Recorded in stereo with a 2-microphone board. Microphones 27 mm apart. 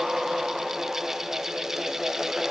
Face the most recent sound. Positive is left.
No sound to turn to.